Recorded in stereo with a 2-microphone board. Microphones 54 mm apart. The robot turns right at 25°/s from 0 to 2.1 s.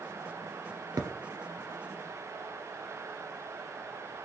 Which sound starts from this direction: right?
A thud, at 1.0 s.